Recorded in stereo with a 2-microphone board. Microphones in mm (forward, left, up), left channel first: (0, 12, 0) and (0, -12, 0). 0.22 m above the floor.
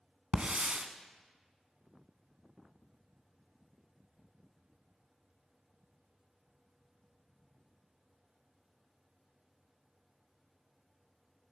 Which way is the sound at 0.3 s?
50° right (ahead or behind).